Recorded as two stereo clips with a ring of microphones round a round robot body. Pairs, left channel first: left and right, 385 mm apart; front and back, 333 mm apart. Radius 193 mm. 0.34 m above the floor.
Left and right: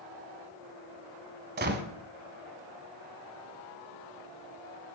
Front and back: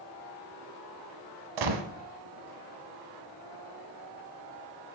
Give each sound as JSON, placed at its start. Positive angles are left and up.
{"t": 1.6, "sound": "a gunshot", "azimuth_deg": -155, "distance_m": 1.2}